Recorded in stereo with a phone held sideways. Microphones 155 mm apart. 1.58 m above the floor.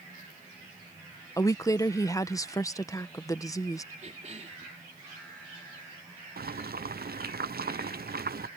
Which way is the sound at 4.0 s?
50° right (ahead or behind).